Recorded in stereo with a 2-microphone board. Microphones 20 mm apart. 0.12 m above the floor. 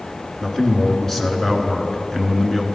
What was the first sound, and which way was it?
A man speaking, 20° left (ahead or behind).